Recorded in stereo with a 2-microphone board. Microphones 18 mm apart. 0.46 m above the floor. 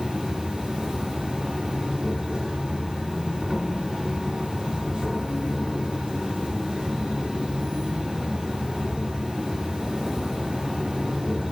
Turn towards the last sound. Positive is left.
turn(degrees=-45)  # may be behind; listen again after turning